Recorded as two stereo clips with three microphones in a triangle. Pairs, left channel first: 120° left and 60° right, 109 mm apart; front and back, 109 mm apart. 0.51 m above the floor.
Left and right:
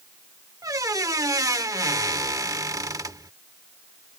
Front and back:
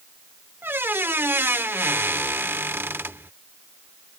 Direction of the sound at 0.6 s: 110° right.